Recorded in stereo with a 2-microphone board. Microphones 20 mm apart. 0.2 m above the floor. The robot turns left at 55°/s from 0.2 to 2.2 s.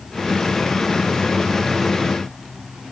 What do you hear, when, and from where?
Only background noise.